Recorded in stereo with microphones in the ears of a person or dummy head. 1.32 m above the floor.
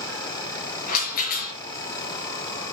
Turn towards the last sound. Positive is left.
turn(degrees=45)  # may be behind; listen again after turning